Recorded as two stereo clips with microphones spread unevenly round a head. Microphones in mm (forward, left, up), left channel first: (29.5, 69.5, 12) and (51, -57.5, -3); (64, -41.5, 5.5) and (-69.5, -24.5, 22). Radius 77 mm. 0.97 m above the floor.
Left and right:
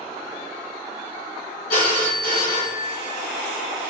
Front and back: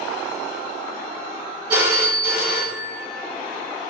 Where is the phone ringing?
105° left, 1.7 m.